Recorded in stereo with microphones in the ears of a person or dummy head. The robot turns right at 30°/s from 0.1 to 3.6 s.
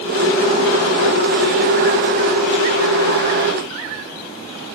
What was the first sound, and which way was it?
Only background noise.